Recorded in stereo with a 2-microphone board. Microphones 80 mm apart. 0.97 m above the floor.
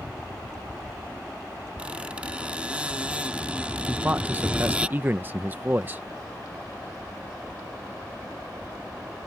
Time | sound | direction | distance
1.8 | a squeak | 15° right (ahead or behind) | ?
3.9 | a man speaking | 25° right (ahead or behind) | ?